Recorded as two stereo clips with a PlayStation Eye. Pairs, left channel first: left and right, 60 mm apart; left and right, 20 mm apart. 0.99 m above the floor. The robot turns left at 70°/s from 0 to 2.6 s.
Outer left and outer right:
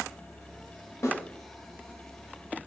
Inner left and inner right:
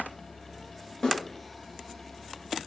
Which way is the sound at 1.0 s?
45° left (ahead or behind).